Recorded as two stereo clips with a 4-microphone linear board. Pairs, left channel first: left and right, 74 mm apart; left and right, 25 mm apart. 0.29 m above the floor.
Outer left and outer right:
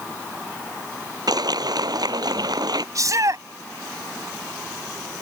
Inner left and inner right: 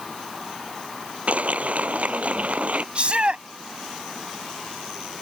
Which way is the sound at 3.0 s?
55° right (ahead or behind).